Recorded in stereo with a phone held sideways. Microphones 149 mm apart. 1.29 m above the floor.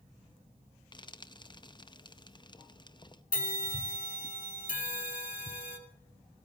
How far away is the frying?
About 0.6 m.